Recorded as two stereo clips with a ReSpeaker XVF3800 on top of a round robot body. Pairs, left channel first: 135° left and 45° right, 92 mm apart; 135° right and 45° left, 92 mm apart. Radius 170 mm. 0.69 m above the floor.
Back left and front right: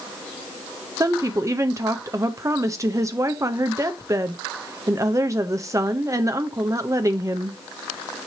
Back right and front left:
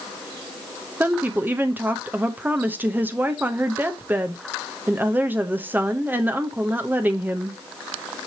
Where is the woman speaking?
15° right, 1.1 m.